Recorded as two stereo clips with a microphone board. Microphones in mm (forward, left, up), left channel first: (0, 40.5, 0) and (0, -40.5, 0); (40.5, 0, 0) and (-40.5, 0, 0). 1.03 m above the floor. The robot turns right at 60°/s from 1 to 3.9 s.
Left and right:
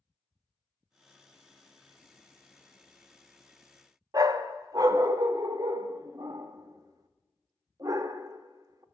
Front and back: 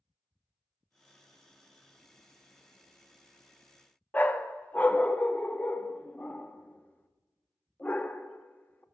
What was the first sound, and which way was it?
A dog barking, 65° right.